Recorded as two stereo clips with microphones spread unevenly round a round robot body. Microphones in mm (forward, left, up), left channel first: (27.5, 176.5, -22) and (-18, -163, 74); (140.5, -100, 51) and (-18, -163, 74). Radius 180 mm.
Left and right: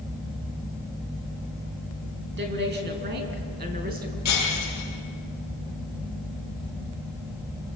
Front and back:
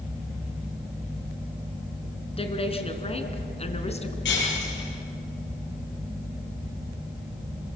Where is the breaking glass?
40° left, 6.5 m.